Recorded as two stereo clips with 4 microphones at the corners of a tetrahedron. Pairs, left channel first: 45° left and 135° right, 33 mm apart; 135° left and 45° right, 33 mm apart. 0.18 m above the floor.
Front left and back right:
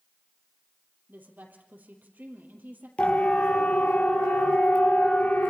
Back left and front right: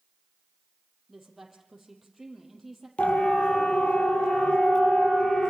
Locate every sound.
1.1 s a woman speaking: 130° right, 4.5 m
3.0 s a siren: 90° left, 6 m; by 5.5 s 75° left, 5 m